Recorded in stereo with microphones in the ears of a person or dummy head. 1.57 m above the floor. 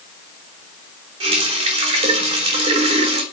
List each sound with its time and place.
1.2 s a running tap: 35° right (ahead or behind), 3 m